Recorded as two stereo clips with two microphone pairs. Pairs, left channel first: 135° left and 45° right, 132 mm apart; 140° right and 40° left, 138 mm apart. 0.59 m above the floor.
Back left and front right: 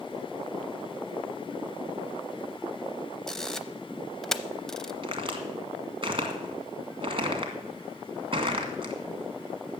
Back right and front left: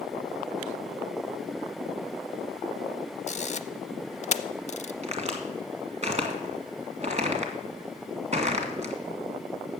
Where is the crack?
5° left, 1.9 m.